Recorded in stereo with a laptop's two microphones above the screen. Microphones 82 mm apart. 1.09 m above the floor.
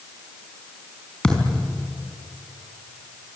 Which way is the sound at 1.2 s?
10° left (ahead or behind).